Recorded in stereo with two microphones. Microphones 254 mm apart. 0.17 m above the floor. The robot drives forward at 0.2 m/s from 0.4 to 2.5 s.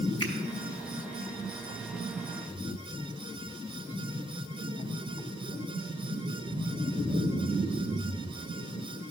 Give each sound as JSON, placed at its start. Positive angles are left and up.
{"t": 0.2, "sound": "a finger snap", "side_deg": 20, "distance_m": 1.5}